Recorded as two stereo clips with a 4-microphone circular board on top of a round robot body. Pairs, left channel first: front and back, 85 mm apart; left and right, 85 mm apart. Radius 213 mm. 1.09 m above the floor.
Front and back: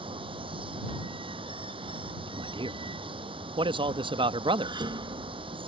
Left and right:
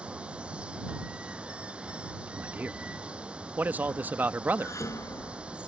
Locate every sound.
0.0 s running water: 165° right
2.3 s a man speaking: 160° right
4.6 s dishes clattering: 145° left